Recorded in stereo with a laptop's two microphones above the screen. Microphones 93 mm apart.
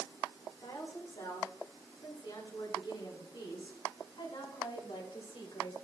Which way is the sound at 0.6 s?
45° left (ahead or behind).